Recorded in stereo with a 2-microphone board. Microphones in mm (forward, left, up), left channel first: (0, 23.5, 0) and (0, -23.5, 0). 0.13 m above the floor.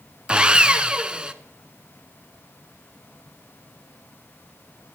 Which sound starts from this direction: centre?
Sawing, at 0.3 s.